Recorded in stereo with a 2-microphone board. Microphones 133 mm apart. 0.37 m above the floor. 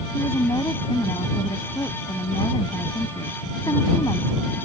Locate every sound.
0.1 s a woman speaking: 30° left (ahead or behind)